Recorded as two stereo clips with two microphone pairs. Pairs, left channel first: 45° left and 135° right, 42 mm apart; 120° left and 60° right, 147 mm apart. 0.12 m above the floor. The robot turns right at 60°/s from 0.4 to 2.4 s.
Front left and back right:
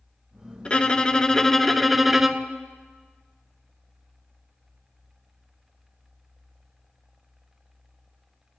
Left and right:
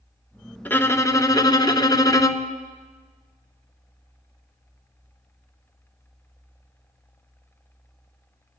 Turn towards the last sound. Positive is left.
turn(degrees=165)